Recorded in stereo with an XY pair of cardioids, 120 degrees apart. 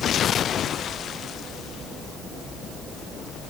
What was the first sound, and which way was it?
Only background noise.